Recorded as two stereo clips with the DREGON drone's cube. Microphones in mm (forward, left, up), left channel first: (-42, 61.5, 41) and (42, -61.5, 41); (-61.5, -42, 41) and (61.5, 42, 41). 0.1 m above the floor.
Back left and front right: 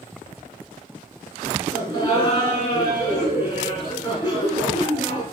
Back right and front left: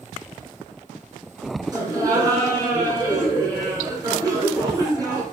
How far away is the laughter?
About 1.6 m.